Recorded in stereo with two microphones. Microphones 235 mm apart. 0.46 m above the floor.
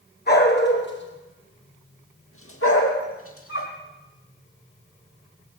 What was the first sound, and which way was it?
A dog barking, 45° left (ahead or behind).